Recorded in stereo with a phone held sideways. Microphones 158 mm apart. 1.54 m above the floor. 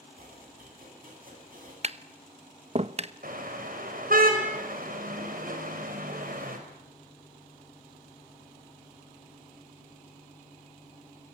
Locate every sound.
0.2 s chopping: 65° right (ahead or behind), 10 m
1.8 s tapping: 40° right (ahead or behind), 0.9 m
3.2 s a car horn: 65° right (ahead or behind), 5 m